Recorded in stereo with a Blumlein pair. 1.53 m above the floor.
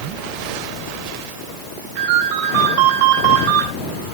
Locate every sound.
2.0 s a ringtone: 40° right, 7.5 m